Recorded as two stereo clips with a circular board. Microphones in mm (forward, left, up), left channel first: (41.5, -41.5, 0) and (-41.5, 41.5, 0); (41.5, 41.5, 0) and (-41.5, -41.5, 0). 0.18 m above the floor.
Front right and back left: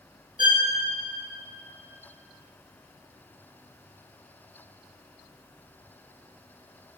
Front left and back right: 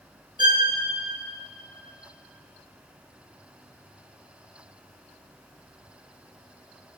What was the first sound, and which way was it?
A violin, straight behind.